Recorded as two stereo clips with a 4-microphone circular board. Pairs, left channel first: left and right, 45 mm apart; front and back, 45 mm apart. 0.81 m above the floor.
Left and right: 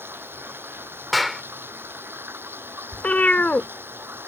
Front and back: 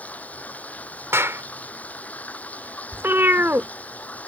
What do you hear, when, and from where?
0.0 s running water: 55° right
1.1 s a clap: straight behind
2.9 s a cat meowing: 145° left